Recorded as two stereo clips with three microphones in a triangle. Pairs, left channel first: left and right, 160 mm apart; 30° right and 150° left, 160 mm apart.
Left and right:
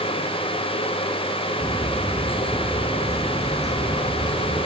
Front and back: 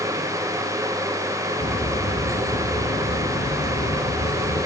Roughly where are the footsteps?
Ahead.